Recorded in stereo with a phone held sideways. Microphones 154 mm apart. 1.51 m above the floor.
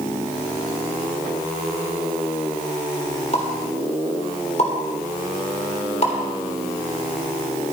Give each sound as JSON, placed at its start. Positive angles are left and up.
{"t": 3.3, "sound": "a pop", "side_deg": 45, "distance_m": 3.5}